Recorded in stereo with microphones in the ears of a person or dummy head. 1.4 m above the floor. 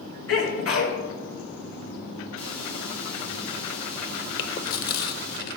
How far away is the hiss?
About 2.5 m.